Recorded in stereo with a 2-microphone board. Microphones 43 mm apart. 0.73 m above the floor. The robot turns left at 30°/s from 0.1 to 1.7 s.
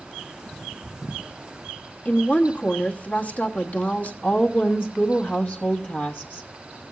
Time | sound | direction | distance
2.0 | a woman speaking | 40° left (ahead or behind) | 1.2 m
4.2 | a woman speaking | 40° left (ahead or behind) | 1.2 m